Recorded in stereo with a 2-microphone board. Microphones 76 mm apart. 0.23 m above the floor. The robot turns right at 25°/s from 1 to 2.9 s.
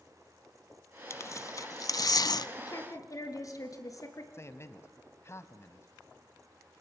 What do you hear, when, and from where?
1.1 s tearing paper: 40° left (ahead or behind), 0.5 m; by 2.5 s 65° left (ahead or behind), 0.5 m
2.6 s a woman speaking: 55° left (ahead or behind), 3.5 m; by 4.2 s 50° left (ahead or behind), 3.5 m
4.3 s a man speaking: 35° left (ahead or behind), 1.3 m